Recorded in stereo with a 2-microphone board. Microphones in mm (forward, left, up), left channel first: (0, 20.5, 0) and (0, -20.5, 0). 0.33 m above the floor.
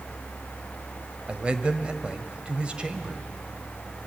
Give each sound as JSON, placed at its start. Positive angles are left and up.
{"t": 1.3, "sound": "a man speaking", "side_deg": -30, "distance_m": 1.3}